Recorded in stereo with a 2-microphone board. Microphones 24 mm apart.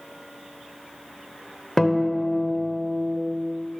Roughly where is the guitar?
Centre.